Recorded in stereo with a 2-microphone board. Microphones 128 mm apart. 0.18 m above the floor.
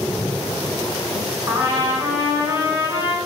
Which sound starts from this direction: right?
A trumpet, at 1.5 s.